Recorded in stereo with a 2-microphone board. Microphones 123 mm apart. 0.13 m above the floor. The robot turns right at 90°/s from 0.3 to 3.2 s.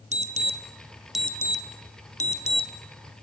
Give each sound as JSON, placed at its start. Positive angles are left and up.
{"t": 0.1, "sound": "an alarm", "side_deg": -65, "distance_m": 1.9}